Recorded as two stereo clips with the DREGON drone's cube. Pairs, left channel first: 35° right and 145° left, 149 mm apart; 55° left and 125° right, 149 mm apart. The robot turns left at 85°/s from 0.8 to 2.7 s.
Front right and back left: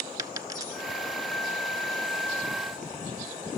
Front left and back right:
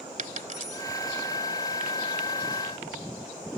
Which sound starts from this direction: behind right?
A dropped coin, at 0.2 s.